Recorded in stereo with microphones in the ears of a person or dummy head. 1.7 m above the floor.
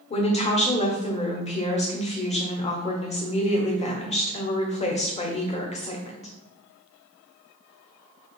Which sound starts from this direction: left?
A woman speaking, at 0.1 s.